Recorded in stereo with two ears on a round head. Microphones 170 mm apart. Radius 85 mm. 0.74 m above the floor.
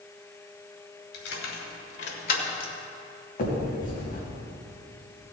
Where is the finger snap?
50° left (ahead or behind), 3.5 m.